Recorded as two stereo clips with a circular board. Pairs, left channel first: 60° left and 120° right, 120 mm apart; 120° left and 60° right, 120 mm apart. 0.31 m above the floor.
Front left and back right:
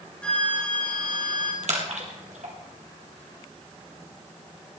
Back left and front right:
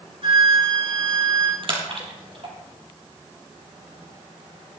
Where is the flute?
20° right, 4 m.